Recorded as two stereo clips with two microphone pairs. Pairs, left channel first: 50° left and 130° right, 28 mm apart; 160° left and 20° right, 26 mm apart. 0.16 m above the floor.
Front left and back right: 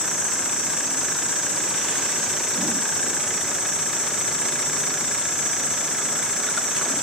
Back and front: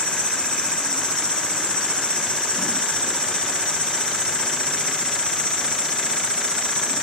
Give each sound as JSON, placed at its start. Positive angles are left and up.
{"t": 0.0, "sound": "an insect", "azimuth_deg": -175, "distance_m": 4.0}